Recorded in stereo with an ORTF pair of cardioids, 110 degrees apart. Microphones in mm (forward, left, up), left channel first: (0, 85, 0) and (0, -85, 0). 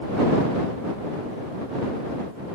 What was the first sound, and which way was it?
Only background noise.